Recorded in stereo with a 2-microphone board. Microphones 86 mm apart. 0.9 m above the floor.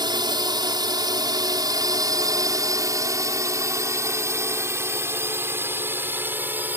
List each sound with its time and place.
0.0 s a drone: 60° right (ahead or behind); by 6.8 s 20° right (ahead or behind)